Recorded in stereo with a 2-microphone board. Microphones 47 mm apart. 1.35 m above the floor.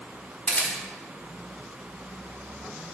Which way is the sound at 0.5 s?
30° left (ahead or behind).